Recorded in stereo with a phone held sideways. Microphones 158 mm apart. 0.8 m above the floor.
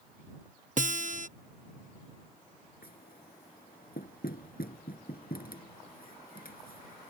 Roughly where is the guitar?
Right.